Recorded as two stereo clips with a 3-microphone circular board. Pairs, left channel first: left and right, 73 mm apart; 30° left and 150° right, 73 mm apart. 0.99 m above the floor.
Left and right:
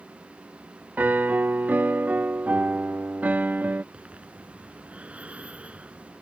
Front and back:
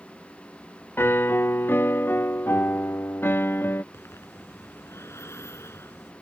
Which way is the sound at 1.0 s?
25° right.